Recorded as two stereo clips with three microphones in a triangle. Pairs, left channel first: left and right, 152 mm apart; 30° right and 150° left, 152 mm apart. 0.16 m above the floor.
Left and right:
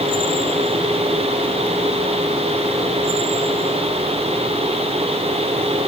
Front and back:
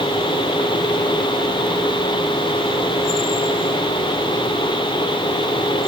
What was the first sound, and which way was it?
Only background noise.